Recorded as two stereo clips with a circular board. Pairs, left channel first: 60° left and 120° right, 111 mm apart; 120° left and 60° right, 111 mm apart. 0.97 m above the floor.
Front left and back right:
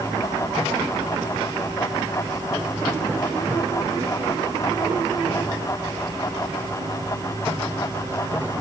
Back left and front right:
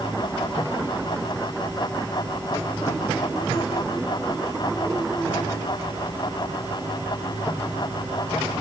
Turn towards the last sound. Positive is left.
No sound to turn to.